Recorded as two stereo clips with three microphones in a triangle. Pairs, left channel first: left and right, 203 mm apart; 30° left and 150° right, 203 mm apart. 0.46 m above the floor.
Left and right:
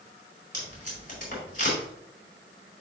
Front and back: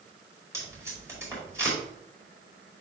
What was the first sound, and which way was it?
Tape being pulled, 135° left.